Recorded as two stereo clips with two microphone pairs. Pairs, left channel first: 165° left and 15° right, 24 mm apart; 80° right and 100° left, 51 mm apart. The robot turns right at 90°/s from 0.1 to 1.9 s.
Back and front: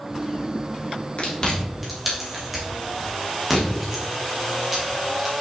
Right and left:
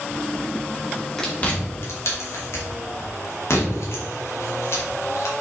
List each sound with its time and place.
1.2 s chewing: 155° right, 2.5 m; by 5.3 s 90° right, 2.5 m